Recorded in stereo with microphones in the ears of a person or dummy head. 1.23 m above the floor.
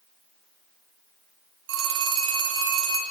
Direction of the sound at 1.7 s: 80° right.